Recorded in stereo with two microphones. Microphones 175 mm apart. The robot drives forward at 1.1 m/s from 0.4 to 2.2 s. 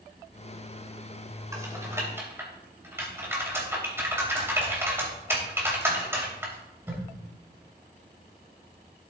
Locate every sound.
1.5 s typing on a keyboard: 20° right (ahead or behind), 2.5 m; by 7.0 s 15° right (ahead or behind), 3 m